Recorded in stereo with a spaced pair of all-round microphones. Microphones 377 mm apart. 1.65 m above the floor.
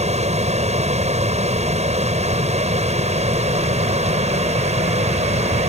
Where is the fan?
15° right (ahead or behind).